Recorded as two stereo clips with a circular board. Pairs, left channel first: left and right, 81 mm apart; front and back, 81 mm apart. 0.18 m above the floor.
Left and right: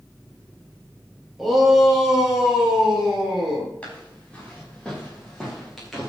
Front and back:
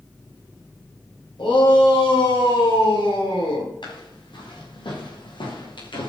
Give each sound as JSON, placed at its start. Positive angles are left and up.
{"t": 1.4, "sound": "a shout", "azimuth_deg": 0, "distance_m": 5.5}
{"t": 3.8, "sound": "footsteps", "azimuth_deg": 15, "distance_m": 7.5}